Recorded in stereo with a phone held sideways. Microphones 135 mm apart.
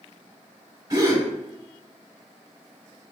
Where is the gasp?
30° right (ahead or behind), 1.1 m.